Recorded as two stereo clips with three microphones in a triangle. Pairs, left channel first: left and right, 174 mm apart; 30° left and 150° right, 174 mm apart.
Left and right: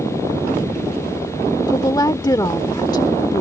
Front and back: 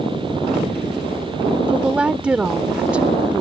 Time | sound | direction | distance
1.7 | a woman speaking | 135° left | ?